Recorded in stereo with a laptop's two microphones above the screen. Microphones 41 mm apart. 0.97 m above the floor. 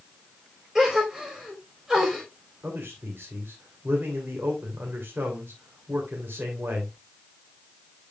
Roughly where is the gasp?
Centre.